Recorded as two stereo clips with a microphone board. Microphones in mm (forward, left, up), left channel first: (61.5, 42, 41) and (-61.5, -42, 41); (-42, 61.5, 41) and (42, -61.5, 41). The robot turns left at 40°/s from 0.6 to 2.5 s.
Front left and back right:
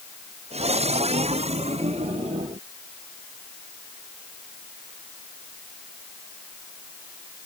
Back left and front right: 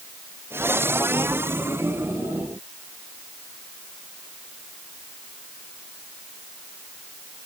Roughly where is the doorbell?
No doorbell in this recording.